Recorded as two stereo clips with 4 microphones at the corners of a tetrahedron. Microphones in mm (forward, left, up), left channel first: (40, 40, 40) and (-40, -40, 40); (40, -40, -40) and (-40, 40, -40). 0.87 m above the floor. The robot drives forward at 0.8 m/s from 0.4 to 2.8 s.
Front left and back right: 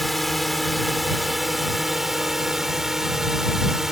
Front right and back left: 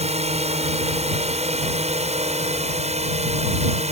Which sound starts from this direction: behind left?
A drone, at 0.0 s.